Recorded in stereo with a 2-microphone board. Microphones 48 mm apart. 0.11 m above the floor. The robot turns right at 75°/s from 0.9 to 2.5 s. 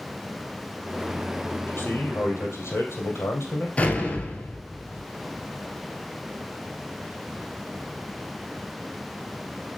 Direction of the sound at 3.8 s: 25° left (ahead or behind).